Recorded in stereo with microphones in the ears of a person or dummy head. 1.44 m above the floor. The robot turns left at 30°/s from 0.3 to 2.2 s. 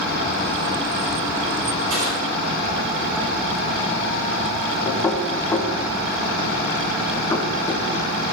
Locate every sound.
1.9 s crushing: 70° right (ahead or behind), 4 m; by 2.2 s 80° right, 4 m
4.8 s knocking: 15° left (ahead or behind), 0.8 m